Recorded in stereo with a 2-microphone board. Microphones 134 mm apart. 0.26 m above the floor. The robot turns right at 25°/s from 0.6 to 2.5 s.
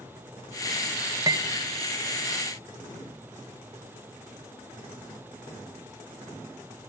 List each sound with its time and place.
1.3 s cutlery clinking: 25° right (ahead or behind), 0.6 m